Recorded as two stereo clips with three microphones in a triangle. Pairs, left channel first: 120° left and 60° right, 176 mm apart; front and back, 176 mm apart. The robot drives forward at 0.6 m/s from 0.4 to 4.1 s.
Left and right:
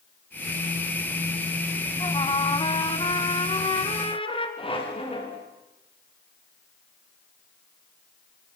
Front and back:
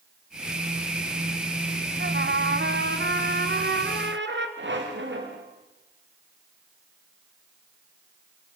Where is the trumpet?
Straight behind, 1.1 m.